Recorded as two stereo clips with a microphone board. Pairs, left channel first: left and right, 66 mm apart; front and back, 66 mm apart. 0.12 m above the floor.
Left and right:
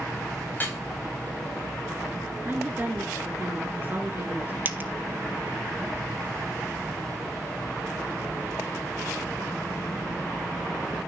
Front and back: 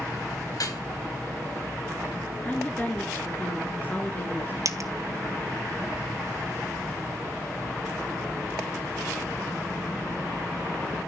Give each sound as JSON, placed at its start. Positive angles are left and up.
{"t": 0.5, "sound": "dripping", "azimuth_deg": 30, "distance_m": 6.0}
{"t": 2.4, "sound": "a woman speaking", "azimuth_deg": -50, "distance_m": 1.4}
{"t": 4.7, "sound": "a dropped coin", "azimuth_deg": -145, "distance_m": 0.9}